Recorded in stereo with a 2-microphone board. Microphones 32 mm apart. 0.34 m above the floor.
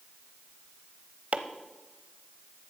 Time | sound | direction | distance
1.3 | chopping | 50° right (ahead or behind) | 0.8 m